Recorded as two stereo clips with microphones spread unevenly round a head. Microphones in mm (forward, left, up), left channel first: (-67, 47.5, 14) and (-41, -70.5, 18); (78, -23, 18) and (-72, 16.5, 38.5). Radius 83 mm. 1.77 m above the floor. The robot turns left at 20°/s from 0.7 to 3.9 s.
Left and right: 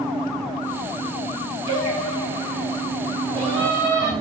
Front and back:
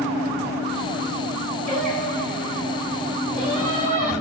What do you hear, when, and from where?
1.7 s singing: 145° right, 1.7 m; by 4.1 s 170° left, 1.7 m